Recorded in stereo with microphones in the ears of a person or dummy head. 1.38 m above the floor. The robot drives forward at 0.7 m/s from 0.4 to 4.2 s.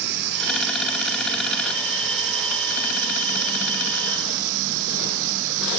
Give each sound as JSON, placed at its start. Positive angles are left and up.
{"t": 0.0, "sound": "running water", "side_deg": -55}